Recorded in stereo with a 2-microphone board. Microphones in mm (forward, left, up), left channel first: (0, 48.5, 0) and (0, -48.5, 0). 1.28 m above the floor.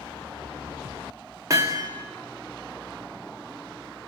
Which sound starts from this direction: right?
Hammering, at 1.5 s.